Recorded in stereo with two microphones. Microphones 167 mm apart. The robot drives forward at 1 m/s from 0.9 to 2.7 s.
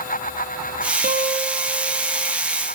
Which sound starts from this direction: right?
A guitar, at 1.0 s.